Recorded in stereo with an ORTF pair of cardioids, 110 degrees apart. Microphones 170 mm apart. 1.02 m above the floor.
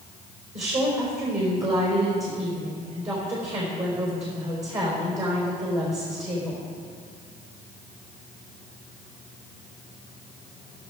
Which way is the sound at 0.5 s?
40° right.